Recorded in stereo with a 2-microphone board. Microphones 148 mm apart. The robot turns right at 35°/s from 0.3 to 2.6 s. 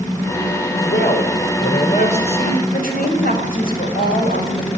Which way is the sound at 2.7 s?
80° left.